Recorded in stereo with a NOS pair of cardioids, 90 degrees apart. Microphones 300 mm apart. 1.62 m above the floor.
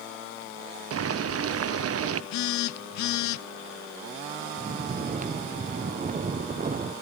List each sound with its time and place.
0.9 s boiling: 50° right, 1.0 m
2.3 s a phone buzzing: 70° left, 0.7 m
4.6 s snoring: 25° right, 1.0 m